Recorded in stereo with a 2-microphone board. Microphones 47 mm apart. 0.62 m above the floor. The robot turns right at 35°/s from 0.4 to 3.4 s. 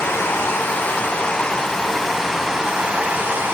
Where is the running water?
120° left, 1.3 m; by 3.5 s 135° right, 1.3 m.